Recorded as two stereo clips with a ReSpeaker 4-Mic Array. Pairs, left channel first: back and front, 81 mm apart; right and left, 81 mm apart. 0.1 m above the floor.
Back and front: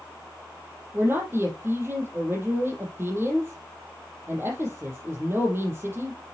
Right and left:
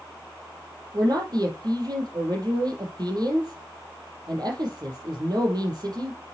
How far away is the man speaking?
About 4 m.